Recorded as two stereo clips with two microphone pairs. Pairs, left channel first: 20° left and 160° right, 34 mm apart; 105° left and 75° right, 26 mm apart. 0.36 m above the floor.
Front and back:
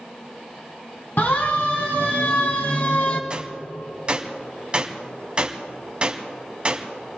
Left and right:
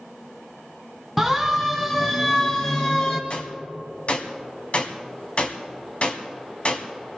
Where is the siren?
15° left, 2.5 m; by 3.2 s 50° left, 2.5 m.